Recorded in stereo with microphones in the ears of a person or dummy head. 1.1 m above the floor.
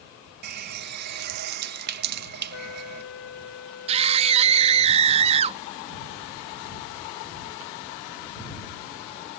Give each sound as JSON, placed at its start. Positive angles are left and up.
{"t": 0.4, "sound": "a running tap", "side_deg": -55}
{"t": 2.5, "sound": "a trumpet", "side_deg": 80}
{"t": 3.9, "sound": "a scream", "side_deg": -35}